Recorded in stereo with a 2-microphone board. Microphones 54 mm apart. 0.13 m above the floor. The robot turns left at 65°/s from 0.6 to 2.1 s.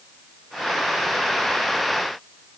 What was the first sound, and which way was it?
Only background noise.